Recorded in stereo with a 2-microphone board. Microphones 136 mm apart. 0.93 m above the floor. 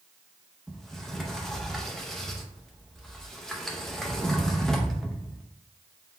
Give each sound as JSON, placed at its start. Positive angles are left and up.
{"t": 0.7, "sound": "a sliding door", "side_deg": 5, "distance_m": 0.6}